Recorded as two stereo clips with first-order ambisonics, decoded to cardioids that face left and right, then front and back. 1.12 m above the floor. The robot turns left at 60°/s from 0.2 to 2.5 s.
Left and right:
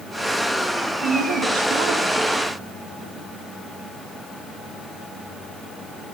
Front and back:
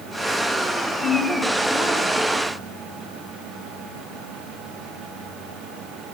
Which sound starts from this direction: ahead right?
A woman speaking, at 1.0 s.